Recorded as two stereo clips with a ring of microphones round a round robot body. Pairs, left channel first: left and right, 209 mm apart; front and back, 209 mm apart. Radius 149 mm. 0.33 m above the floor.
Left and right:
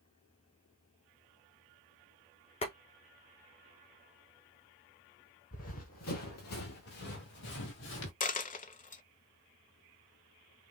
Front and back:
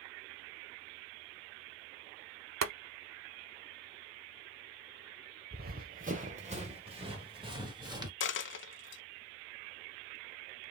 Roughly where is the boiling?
Behind.